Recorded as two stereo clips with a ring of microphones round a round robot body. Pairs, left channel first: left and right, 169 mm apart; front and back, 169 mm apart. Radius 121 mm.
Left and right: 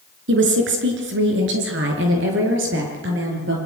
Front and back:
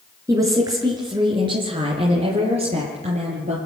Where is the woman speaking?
100° right, 4.5 m; by 3.5 s 115° right, 7 m.